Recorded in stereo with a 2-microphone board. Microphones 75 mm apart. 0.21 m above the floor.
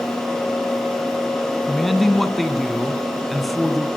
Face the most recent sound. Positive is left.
turn(degrees=0)  # may be behind; listen again after turning